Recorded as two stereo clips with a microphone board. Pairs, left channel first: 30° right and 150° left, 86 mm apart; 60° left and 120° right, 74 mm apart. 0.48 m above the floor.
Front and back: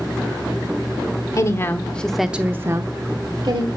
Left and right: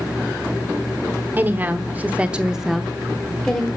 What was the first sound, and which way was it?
A woman speaking, 65° right.